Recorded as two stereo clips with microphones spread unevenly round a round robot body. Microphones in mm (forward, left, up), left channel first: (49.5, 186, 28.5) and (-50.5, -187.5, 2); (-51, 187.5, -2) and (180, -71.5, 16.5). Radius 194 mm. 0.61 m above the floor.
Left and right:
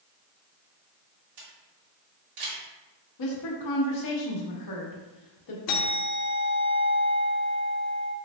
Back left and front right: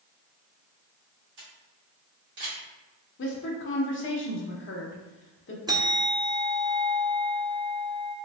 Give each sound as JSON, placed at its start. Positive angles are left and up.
{"t": 1.4, "sound": "a camera shutter", "azimuth_deg": -105, "distance_m": 1.6}
{"t": 3.2, "sound": "a woman speaking", "azimuth_deg": 90, "distance_m": 1.0}
{"t": 5.7, "sound": "a bell", "azimuth_deg": 30, "distance_m": 0.7}